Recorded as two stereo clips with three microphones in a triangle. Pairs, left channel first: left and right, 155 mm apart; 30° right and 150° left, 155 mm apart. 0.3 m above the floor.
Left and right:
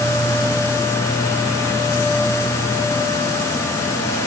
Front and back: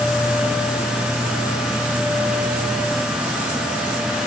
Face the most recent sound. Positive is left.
No sound to turn to.